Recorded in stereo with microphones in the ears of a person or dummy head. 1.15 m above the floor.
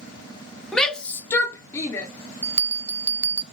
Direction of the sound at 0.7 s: Centre (ahead or behind).